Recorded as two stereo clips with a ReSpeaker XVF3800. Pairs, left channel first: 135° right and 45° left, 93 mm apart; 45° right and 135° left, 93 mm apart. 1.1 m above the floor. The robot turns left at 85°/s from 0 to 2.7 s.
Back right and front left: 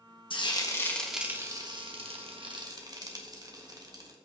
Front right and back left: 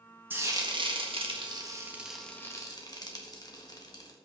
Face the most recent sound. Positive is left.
turn(degrees=0)